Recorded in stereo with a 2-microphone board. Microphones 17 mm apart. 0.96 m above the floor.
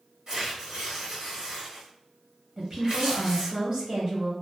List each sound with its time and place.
0.3 s tearing paper: 35° right (ahead or behind), 1.1 m
2.6 s a woman speaking: 30° right (ahead or behind), 1.1 m